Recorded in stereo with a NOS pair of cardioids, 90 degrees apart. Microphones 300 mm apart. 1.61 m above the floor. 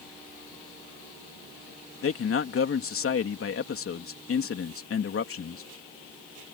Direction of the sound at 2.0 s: 45° left.